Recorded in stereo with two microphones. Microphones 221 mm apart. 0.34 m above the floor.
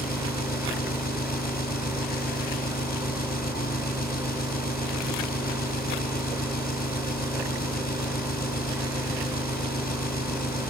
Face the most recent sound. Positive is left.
turn(degrees=45)  # may be behind; listen again after turning